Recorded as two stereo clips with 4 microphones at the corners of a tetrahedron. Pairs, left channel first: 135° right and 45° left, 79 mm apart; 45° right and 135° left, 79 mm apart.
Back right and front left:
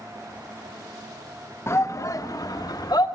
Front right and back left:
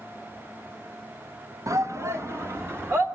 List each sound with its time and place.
1.7 s a shout: 175° left, 1.0 m; by 3.1 s 170° right, 2 m